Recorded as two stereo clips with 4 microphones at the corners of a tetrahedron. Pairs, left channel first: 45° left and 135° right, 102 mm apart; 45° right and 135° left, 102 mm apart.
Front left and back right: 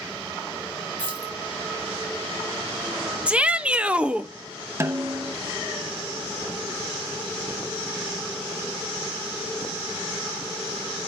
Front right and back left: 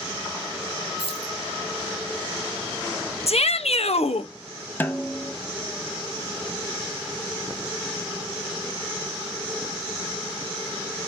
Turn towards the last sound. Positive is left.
turn(degrees=-100)